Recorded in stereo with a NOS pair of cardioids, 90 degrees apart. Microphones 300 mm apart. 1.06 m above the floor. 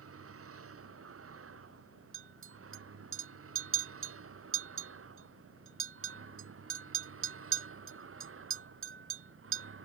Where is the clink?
45° right.